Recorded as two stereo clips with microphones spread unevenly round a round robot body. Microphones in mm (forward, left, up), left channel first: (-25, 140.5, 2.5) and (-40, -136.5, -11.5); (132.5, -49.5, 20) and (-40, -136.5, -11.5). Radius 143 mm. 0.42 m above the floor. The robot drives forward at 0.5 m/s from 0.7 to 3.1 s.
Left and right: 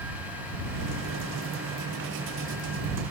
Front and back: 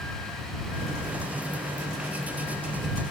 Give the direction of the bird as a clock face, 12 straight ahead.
No bird in this recording.